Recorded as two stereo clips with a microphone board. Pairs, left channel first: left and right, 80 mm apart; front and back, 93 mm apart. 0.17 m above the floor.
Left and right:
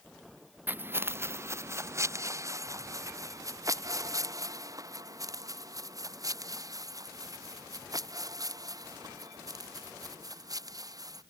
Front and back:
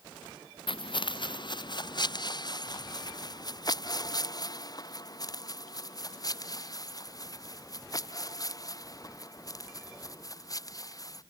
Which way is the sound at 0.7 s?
25° right.